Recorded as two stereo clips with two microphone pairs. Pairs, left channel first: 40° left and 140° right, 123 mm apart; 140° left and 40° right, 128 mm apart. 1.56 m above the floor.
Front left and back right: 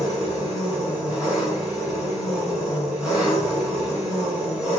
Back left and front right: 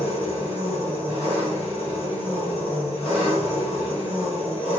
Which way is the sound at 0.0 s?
140° left.